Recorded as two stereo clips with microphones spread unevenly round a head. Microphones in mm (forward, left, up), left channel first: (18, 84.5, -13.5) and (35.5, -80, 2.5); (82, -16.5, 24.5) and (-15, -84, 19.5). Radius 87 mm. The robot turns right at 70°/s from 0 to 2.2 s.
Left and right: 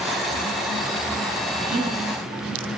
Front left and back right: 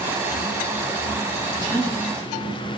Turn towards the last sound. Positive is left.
turn(degrees=-5)